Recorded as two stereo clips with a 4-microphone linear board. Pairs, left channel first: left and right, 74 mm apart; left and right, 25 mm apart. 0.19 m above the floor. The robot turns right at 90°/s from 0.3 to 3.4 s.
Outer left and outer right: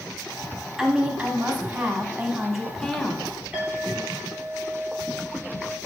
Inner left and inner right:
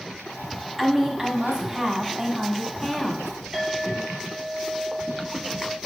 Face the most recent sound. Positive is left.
turn(degrees=-15)  # may be behind; listen again after turning